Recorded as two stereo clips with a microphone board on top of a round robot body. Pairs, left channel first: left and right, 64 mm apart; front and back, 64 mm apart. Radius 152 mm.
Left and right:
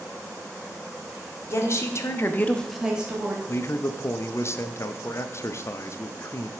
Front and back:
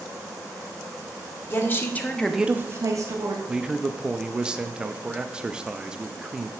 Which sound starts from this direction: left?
A man speaking, at 3.5 s.